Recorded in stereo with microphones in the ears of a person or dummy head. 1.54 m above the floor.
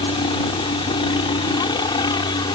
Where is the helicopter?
30° left (ahead or behind); by 2.6 s 25° left (ahead or behind).